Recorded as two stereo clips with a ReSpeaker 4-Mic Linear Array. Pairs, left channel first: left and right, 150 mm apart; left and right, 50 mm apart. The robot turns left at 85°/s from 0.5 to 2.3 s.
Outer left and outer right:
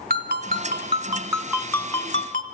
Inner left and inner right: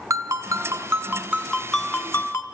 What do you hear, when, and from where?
0.1 s a ringtone: 85° right, 1.4 m; by 2.4 s 120° left, 1.4 m